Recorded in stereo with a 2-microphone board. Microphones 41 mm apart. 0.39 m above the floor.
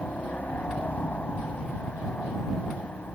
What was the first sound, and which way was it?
A helicopter, 35° left (ahead or behind).